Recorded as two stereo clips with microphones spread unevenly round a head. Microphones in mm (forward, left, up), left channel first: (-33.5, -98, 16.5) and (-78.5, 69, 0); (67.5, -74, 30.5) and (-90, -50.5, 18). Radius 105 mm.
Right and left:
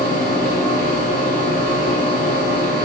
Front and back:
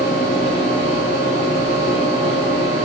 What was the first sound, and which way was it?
A fan, 130° left.